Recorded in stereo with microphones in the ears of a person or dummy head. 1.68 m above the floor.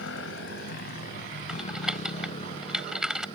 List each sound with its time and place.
0.0 s a motorcycle: 80° left; by 3.4 s 30° left (ahead or behind)
1.5 s typing on a keyboard: centre (ahead or behind)